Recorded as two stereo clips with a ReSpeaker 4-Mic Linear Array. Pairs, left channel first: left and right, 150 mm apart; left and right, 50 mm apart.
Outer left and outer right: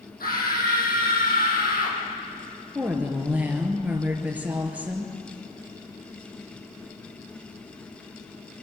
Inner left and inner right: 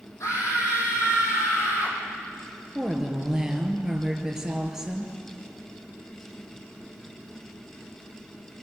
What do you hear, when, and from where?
0.2 s a scream: 75° left (ahead or behind), 6.5 m
2.8 s a woman speaking: 10° right (ahead or behind), 3.5 m